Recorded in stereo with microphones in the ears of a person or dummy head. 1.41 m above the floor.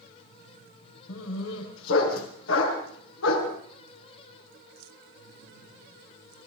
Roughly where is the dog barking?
Left.